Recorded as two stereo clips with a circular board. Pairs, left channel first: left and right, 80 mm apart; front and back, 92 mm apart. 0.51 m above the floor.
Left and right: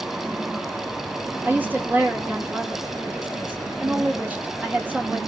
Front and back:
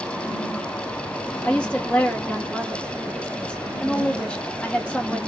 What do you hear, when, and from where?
1.4 s a woman speaking: 60° right, 1.1 m